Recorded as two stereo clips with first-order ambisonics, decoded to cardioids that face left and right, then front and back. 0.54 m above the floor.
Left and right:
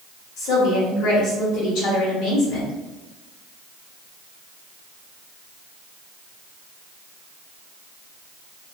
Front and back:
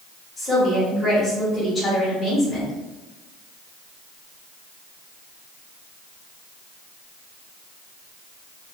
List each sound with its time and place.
0.4 s a woman speaking: 75° left, 1.1 m